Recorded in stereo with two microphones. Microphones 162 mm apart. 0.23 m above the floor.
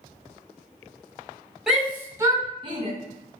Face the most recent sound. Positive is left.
turn(degrees=-35)  # may be behind; listen again after turning